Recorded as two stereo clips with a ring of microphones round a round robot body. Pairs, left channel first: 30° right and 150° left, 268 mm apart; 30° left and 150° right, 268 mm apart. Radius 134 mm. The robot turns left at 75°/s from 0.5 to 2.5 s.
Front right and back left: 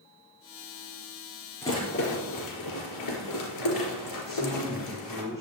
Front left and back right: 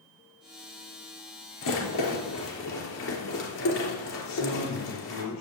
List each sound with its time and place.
1.6 s a rattle: 50° left, 3.5 m; by 5.2 s 15° right, 3.5 m
4.2 s a man speaking: 50° left, 6 m